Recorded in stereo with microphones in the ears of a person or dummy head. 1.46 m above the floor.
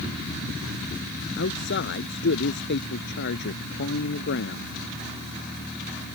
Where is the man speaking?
55° left (ahead or behind).